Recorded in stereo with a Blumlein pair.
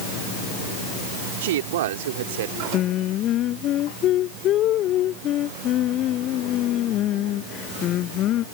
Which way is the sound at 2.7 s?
35° left.